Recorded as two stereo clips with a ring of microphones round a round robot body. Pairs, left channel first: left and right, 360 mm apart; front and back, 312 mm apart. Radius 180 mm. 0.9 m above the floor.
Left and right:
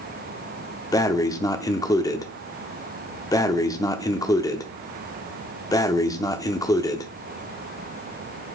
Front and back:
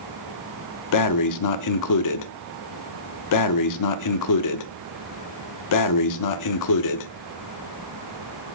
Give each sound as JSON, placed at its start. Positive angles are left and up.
{"t": 0.9, "sound": "breathing", "azimuth_deg": 10, "distance_m": 0.6}